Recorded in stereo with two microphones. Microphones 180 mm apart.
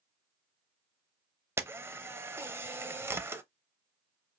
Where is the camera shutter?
15° right (ahead or behind), 0.6 m.